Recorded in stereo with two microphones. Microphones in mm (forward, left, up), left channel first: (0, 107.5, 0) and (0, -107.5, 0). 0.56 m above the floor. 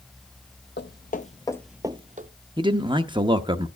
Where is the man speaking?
20° right (ahead or behind), 0.8 m.